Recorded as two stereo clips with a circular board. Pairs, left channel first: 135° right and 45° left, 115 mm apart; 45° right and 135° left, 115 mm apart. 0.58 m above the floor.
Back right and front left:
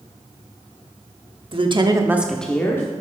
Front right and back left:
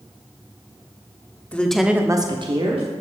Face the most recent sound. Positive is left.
turn(degrees=165)